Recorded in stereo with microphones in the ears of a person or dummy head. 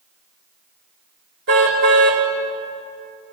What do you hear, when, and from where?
1.5 s a car horn: 55° right (ahead or behind), 3.5 m